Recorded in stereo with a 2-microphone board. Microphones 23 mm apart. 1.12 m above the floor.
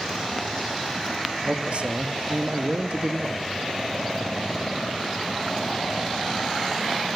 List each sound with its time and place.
1.4 s a man speaking: 55° right (ahead or behind), 1.8 m